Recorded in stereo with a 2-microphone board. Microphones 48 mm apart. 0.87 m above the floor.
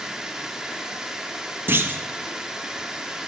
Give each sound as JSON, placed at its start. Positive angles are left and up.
{"t": 0.0, "sound": "running water", "side_deg": -15, "distance_m": 0.8}
{"t": 1.7, "sound": "a clunk", "side_deg": -50, "distance_m": 0.5}